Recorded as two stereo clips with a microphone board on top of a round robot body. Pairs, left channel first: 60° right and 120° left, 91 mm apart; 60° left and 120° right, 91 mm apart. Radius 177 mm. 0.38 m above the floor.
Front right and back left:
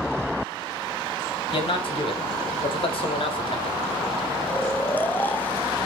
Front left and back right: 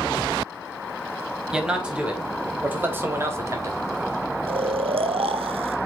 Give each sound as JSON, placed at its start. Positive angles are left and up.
{"t": 1.5, "sound": "a man speaking", "azimuth_deg": -35, "distance_m": 3.0}
{"t": 4.5, "sound": "snoring", "azimuth_deg": -130, "distance_m": 0.7}